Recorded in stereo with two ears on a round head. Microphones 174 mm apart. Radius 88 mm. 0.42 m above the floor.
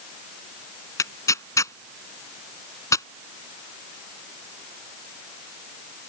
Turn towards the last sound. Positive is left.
turn(degrees=15)  # may be behind; listen again after turning